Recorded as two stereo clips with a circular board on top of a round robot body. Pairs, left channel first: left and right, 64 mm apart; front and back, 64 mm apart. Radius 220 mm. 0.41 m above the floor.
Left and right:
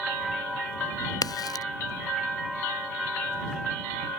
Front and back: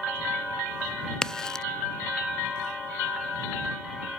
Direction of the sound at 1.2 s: 80° left.